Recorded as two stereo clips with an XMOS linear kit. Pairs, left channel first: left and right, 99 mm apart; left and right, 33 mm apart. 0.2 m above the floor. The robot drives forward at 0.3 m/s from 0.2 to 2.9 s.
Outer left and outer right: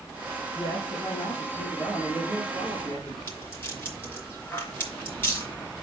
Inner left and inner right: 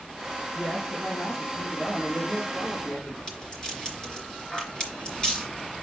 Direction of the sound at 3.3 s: 20° left (ahead or behind).